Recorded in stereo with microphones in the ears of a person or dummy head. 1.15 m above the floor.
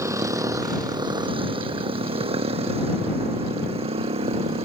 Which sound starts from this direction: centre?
A motorcycle, at 0.0 s.